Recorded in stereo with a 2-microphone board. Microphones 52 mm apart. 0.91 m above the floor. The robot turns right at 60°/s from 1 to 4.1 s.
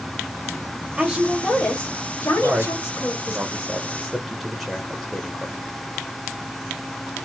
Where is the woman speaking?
15° right, 1.4 m; by 3.4 s 130° left, 1.4 m.